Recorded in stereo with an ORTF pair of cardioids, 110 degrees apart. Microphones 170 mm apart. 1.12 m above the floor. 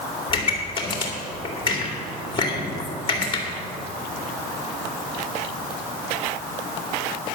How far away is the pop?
About 2.5 m.